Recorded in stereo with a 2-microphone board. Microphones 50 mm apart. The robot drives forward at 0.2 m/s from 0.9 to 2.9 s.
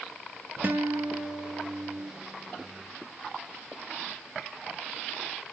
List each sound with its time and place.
0.6 s a guitar: 45° right (ahead or behind), 1.3 m; by 2.1 s 35° right (ahead or behind), 1.4 m